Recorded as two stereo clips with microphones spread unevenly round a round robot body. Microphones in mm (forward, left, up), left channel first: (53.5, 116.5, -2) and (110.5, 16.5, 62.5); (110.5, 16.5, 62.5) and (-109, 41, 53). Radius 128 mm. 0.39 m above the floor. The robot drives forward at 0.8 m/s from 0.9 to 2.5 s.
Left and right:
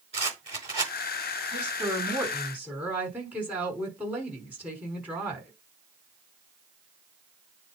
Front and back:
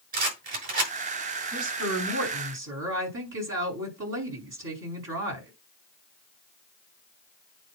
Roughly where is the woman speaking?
Behind right.